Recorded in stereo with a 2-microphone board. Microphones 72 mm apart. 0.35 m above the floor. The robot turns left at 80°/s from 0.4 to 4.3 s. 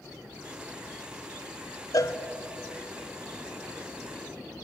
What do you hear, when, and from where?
1.9 s a cowbell: 65° left (ahead or behind), 0.6 m; by 2.2 s 50° left (ahead or behind), 0.6 m